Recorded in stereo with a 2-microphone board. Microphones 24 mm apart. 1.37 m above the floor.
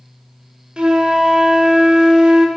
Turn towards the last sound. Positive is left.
turn(degrees=-40)  # may be behind; listen again after turning